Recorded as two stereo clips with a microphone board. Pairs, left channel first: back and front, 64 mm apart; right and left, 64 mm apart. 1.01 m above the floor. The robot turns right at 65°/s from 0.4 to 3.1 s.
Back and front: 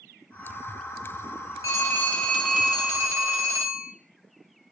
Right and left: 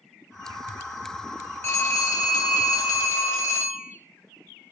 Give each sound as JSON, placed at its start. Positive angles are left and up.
{"t": 1.6, "sound": "a phone ringing", "azimuth_deg": -140, "distance_m": 0.9}